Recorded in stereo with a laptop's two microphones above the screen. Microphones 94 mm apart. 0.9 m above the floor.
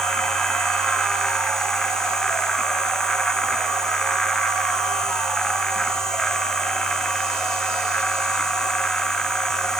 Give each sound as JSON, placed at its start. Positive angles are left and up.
{"t": 0.0, "sound": "a machine running", "side_deg": 5}